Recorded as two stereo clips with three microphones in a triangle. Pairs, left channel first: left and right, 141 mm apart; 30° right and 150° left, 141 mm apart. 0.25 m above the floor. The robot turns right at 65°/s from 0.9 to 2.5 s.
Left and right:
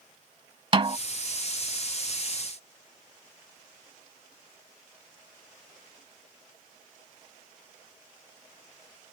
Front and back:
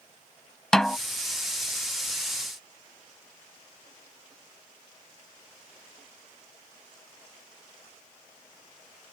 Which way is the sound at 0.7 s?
115° right.